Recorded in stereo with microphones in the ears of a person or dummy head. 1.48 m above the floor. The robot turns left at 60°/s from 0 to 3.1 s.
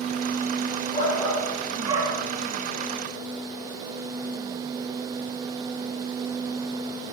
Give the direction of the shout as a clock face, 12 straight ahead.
11 o'clock.